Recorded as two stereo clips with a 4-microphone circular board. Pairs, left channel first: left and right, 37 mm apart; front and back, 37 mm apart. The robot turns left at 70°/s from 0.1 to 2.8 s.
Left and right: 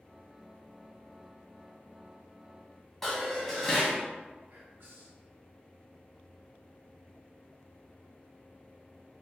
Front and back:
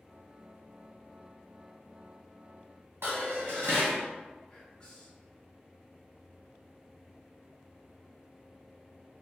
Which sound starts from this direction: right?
Whispering, at 4.5 s.